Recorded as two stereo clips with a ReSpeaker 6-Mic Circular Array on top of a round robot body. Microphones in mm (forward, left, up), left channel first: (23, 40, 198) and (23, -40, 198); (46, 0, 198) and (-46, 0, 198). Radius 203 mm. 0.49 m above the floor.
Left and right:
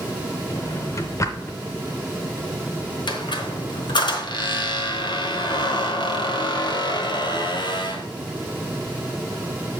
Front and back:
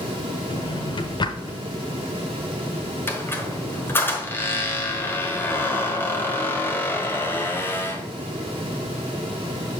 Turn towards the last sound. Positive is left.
turn(degrees=65)